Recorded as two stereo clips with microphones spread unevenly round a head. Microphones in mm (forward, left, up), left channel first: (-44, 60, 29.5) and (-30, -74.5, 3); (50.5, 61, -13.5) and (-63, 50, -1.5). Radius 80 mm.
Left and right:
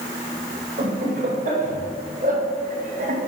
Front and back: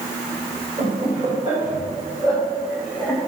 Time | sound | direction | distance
0.8 | laughter | 115° right | 2.5 m